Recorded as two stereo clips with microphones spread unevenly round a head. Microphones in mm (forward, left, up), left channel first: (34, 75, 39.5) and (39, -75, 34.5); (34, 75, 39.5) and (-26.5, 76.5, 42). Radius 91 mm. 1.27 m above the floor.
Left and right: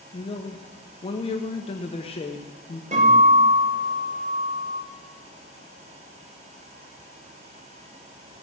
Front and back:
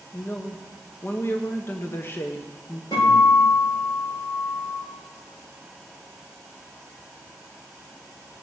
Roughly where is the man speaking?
Ahead left.